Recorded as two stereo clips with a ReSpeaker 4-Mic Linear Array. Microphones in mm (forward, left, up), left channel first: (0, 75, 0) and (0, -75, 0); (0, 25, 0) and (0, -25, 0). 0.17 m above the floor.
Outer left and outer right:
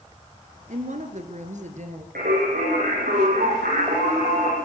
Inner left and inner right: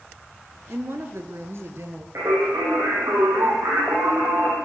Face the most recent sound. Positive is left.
turn(degrees=-80)